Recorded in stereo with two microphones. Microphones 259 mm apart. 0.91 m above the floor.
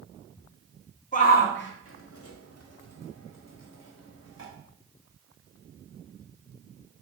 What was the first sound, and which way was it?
A shout, 30° left (ahead or behind).